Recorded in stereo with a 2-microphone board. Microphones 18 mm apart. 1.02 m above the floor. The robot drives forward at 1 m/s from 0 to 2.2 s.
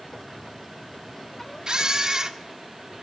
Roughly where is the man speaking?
I don't hear a man speaking.